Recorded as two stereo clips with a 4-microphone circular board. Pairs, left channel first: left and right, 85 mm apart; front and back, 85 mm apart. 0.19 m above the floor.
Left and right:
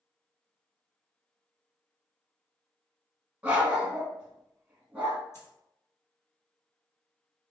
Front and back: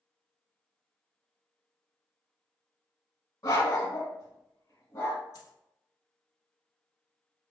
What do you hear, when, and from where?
3.4 s a dog barking: 20° right, 0.8 m
5.3 s a dropped coin: 40° left, 1.1 m